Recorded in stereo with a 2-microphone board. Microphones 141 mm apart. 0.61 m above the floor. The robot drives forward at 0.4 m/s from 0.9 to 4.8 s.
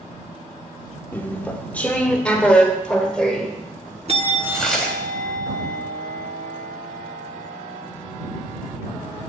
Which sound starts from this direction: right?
A bell, at 4.1 s.